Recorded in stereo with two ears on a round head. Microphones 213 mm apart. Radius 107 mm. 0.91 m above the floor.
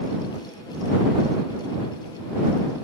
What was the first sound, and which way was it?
Only background noise.